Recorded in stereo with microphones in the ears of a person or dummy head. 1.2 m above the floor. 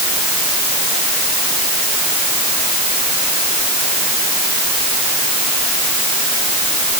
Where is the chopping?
No chopping in this recording.